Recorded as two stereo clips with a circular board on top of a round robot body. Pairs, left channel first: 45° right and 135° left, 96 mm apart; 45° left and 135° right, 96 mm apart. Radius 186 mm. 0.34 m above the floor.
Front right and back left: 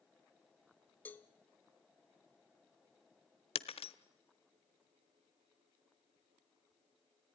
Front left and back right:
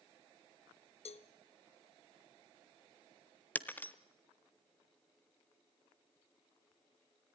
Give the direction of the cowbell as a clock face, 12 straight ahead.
11 o'clock.